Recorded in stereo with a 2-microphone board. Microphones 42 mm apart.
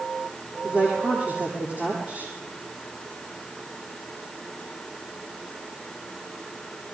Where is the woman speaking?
30° right (ahead or behind), 9.5 m.